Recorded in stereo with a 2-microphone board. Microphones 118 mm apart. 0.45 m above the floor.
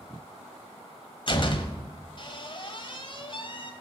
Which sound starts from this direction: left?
A door slam, at 1.3 s.